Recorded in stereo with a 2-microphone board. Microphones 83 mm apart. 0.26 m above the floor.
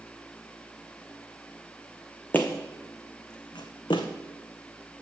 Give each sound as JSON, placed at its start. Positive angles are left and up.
{"t": 2.3, "sound": "footsteps", "side_deg": 20, "distance_m": 0.8}